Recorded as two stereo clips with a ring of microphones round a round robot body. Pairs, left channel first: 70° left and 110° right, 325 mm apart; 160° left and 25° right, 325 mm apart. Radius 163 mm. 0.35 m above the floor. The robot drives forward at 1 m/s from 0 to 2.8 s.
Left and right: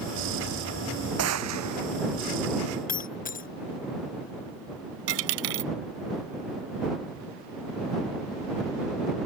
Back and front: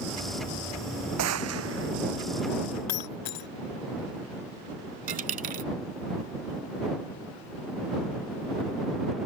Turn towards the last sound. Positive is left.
turn(degrees=-90)